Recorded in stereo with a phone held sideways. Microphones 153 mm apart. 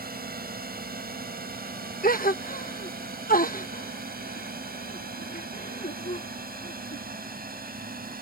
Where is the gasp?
70° left (ahead or behind).